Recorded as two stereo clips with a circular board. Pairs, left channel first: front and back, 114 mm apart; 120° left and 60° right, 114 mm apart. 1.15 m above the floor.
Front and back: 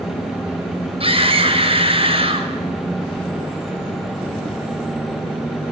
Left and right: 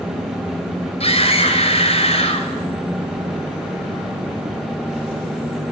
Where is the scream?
145° left, 6 m.